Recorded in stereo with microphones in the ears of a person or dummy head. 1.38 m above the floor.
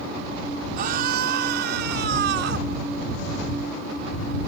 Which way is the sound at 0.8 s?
50° right (ahead or behind).